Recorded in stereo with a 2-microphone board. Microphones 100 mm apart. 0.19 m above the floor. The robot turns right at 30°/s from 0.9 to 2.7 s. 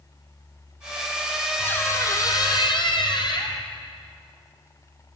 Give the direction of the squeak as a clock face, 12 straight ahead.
11 o'clock.